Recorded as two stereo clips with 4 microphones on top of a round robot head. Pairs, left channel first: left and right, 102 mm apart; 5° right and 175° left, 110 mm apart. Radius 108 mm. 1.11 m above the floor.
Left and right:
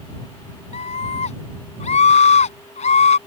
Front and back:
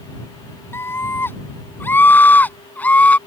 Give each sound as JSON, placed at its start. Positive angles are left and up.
{"t": 0.7, "sound": "a scream", "azimuth_deg": 65}